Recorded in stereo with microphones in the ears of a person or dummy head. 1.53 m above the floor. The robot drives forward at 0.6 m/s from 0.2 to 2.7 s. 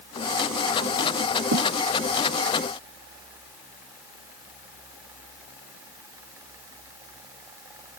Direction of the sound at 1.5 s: 75° right (ahead or behind).